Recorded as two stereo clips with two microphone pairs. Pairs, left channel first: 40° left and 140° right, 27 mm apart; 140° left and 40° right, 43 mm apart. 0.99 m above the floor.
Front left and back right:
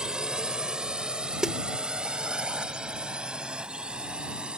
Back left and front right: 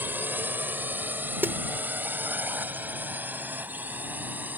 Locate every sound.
0.0 s a drone: 80° right; by 4.6 s 85° right
1.4 s a snare drum: 75° right